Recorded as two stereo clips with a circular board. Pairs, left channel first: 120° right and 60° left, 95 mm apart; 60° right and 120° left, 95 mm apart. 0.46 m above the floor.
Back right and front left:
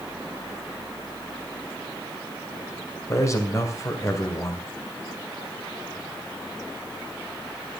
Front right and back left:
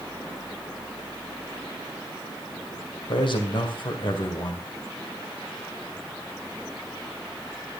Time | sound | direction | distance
3.1 | a man speaking | 70° right | 2 m